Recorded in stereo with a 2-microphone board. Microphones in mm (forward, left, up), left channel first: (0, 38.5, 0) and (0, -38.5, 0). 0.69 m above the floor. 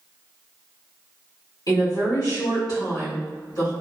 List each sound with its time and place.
1.7 s a woman speaking: 60° left (ahead or behind), 1.7 m